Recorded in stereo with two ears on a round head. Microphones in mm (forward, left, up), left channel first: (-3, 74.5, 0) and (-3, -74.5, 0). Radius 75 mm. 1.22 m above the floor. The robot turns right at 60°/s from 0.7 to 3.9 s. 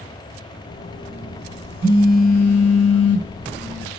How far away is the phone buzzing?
About 2 m.